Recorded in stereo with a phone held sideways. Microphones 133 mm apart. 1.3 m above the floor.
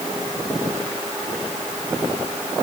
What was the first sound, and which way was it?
Only background noise.